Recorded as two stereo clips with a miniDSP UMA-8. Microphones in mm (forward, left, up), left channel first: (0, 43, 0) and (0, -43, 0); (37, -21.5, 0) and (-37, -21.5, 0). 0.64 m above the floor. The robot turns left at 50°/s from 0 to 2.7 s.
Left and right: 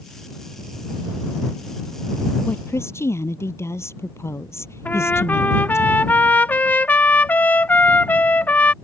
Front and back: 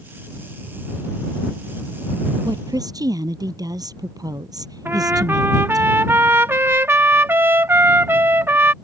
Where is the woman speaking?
160° left; by 5.8 s 150° left.